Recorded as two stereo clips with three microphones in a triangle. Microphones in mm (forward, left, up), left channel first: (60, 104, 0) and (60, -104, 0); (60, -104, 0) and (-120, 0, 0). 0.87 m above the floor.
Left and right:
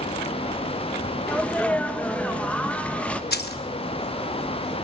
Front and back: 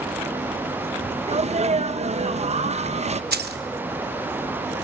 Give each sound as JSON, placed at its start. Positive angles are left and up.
{"t": 1.3, "sound": "a sneeze", "azimuth_deg": 170, "distance_m": 0.6}
{"t": 3.3, "sound": "keys jangling", "azimuth_deg": 120, "distance_m": 0.7}